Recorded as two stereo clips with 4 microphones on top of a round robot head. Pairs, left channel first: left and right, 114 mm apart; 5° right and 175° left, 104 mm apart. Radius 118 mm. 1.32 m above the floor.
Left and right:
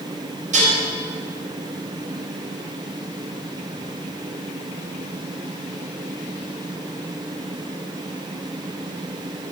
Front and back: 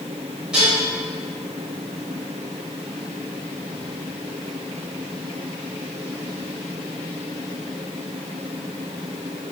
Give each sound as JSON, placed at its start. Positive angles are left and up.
{"t": 0.5, "sound": "dishes clattering", "azimuth_deg": -100, "distance_m": 5.0}